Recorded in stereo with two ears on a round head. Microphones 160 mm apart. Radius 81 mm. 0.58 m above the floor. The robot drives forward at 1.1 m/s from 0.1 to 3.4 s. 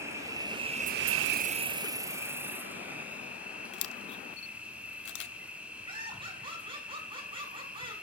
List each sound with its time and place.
0.0 s an insect: 15° right (ahead or behind), 1.2 m; by 8.0 s 5° right (ahead or behind), 2.5 m
3.7 s a camera shutter: 65° left (ahead or behind), 0.8 m
5.9 s laughter: 30° right (ahead or behind), 6.5 m